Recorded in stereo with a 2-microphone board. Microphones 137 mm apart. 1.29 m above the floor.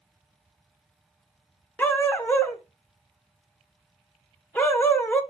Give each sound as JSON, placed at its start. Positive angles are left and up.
{"t": 1.8, "sound": "a dog barking", "side_deg": 15, "distance_m": 1.2}